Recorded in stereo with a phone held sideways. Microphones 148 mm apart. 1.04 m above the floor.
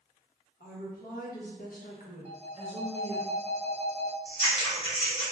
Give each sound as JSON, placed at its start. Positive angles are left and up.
{"t": 0.6, "sound": "a woman speaking", "side_deg": 75, "distance_m": 1.3}
{"t": 2.2, "sound": "a phone ringing", "side_deg": -45, "distance_m": 0.6}
{"t": 4.2, "sound": "scissors", "side_deg": 30, "distance_m": 1.2}